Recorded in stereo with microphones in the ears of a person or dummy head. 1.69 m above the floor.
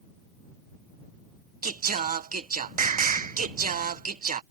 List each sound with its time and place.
1.6 s singing: 40° right (ahead or behind)